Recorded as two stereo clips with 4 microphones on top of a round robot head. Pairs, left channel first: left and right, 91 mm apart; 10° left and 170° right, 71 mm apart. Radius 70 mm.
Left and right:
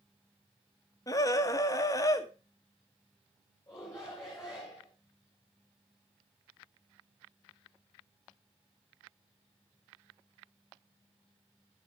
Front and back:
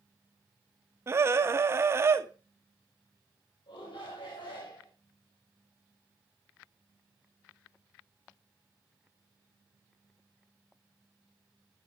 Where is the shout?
25° left, 4 m.